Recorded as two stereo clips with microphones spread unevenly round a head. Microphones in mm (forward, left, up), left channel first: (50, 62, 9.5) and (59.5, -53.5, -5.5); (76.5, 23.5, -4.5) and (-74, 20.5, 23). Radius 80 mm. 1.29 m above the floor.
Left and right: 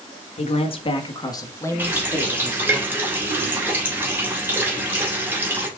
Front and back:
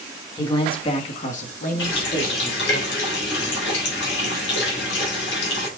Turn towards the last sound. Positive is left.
turn(degrees=-10)